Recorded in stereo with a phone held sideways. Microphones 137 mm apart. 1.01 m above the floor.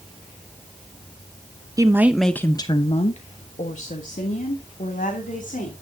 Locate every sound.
1.8 s a woman speaking: 25° right (ahead or behind), 0.9 m; by 5.7 s 85° left, 3 m